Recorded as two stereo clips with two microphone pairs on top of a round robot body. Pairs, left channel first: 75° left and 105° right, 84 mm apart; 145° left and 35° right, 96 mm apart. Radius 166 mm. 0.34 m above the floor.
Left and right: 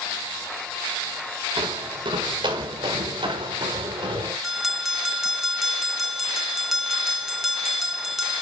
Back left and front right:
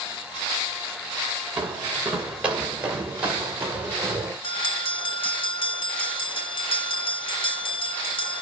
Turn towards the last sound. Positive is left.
turn(degrees=175)